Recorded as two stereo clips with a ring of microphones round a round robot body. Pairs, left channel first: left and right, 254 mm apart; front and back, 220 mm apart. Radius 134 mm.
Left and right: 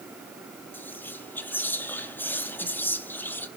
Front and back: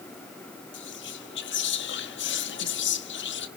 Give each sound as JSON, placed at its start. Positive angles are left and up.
{"t": 0.7, "sound": "whispering", "azimuth_deg": 10, "distance_m": 1.2}